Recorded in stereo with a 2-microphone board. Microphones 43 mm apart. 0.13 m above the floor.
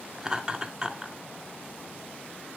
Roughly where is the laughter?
Centre.